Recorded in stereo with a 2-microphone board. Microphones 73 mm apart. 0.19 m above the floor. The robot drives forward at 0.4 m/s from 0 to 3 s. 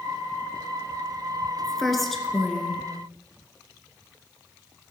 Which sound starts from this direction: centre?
A woman speaking, at 1.6 s.